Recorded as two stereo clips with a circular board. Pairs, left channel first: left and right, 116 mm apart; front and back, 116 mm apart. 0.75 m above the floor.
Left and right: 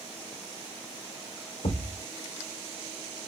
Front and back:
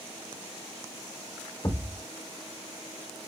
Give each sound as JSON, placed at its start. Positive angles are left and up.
{"t": 1.6, "sound": "a thud", "azimuth_deg": 70, "distance_m": 1.6}